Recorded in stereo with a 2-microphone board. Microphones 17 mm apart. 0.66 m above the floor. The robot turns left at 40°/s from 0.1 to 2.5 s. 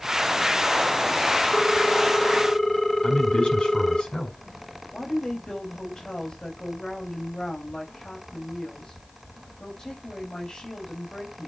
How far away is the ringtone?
About 0.8 m.